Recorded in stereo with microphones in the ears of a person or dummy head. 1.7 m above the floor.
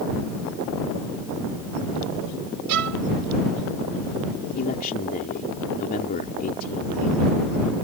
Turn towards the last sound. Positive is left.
turn(degrees=40)  # may be behind; listen again after turning